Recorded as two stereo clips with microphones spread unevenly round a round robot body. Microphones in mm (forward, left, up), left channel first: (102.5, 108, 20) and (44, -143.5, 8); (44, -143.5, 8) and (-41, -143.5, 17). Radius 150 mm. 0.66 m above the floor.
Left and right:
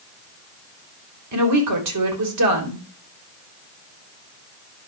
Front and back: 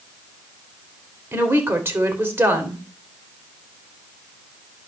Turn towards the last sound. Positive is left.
turn(degrees=-115)